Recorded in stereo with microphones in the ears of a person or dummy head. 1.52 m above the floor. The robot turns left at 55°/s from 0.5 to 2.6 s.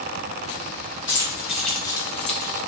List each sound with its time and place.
1.1 s keys jangling: 20° right (ahead or behind), 0.7 m; by 2.6 s 50° left (ahead or behind), 0.7 m